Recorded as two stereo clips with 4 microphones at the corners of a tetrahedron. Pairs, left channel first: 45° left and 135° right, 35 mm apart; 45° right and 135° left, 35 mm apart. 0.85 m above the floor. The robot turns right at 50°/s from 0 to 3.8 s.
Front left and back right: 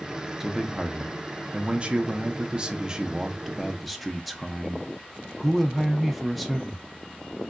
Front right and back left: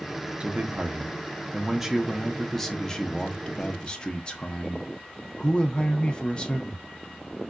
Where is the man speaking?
145° left, 0.6 m; by 6.8 s 45° right, 0.6 m.